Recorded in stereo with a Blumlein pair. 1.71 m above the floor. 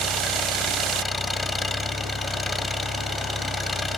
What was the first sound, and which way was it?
An engine running, 10° left.